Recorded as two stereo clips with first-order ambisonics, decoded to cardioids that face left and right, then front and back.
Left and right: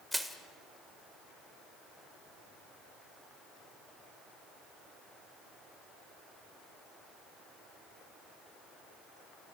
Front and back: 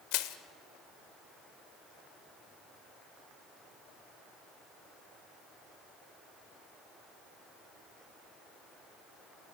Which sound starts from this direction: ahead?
Crushing, at 0.1 s.